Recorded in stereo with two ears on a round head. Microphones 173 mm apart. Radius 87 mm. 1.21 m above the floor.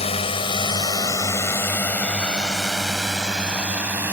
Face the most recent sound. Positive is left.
turn(degrees=-10)  # may be behind; listen again after turning